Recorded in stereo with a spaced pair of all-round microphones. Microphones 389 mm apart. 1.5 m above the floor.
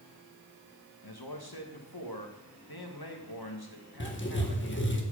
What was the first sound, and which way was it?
A man speaking, 70° left (ahead or behind).